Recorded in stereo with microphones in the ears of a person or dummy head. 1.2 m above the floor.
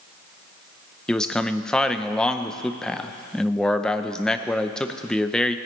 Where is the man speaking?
5° left (ahead or behind), 0.7 m.